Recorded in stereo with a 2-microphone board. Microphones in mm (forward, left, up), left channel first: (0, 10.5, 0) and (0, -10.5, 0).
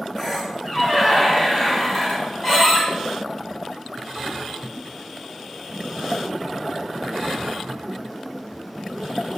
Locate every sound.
0.2 s a squeak: 15° left (ahead or behind), 1.0 m